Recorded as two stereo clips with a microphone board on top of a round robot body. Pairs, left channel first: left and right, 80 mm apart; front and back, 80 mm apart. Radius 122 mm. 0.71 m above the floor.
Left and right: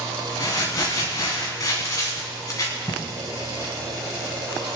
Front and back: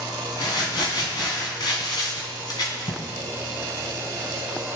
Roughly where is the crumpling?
Ahead left.